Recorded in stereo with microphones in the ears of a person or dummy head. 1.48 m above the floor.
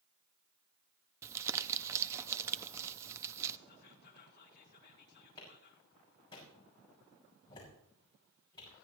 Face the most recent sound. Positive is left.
turn(degrees=30)  # may be behind; listen again after turning